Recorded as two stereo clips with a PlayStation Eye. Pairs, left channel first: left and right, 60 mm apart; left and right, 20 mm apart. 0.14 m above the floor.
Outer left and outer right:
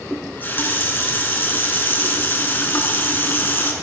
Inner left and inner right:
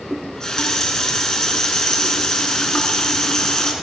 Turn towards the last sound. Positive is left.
turn(degrees=35)  # may be behind; listen again after turning